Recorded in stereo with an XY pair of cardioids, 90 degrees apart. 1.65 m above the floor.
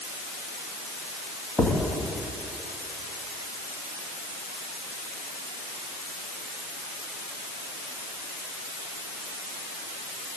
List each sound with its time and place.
1.6 s a thud: 20° left, 8.5 m